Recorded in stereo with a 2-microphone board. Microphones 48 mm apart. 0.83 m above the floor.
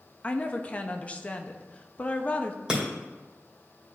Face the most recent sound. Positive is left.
turn(degrees=-15)  # may be behind; listen again after turning